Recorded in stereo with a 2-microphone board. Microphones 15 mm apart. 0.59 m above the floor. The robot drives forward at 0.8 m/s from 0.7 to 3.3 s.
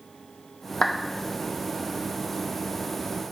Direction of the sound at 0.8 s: 55° left (ahead or behind).